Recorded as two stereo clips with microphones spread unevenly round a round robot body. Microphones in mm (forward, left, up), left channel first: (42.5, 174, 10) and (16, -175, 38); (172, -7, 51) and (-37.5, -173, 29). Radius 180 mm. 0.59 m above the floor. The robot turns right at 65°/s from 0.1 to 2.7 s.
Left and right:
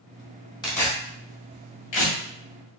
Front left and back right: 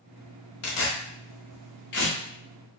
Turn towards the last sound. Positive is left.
turn(degrees=140)